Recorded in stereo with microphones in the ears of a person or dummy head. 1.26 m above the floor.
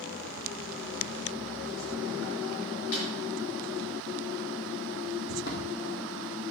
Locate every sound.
2.9 s a snare drum: 70° left (ahead or behind), 5.5 m
5.3 s footsteps: 50° left (ahead or behind), 2.5 m; by 6.4 s 60° left (ahead or behind), 2.5 m